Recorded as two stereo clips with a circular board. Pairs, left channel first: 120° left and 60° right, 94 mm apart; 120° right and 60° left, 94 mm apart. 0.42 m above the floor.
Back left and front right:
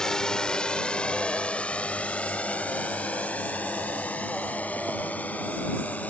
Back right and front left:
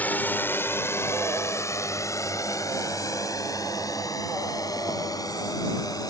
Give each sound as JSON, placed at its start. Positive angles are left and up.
{"t": 0.0, "sound": "a drone", "azimuth_deg": -165}